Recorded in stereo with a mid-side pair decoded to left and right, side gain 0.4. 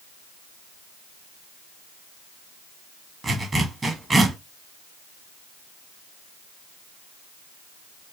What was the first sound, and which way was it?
A zipper, 30° right.